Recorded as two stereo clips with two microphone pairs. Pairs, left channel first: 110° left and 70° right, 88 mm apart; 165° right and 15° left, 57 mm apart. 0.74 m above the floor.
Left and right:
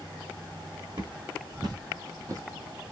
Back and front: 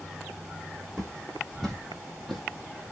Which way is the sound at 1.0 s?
90° right.